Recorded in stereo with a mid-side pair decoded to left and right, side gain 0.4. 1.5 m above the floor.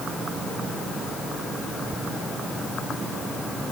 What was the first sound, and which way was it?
Only background noise.